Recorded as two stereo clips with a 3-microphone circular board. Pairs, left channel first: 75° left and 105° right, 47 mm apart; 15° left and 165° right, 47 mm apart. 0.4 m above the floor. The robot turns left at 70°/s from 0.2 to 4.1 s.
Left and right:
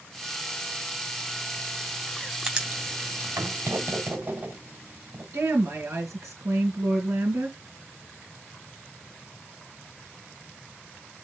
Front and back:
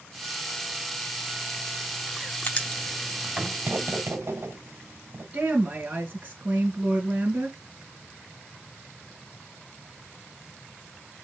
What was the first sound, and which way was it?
Writing, 25° right.